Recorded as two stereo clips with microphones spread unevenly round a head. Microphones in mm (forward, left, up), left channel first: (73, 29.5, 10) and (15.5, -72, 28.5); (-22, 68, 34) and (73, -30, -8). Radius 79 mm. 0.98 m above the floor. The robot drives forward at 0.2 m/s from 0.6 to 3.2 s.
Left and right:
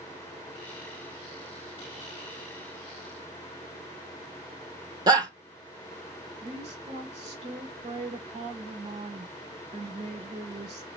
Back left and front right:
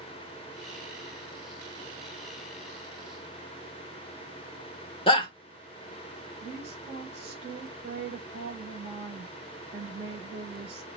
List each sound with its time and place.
5.1 s a shout: 170° right, 0.7 m
6.4 s a woman speaking: 100° right, 2.5 m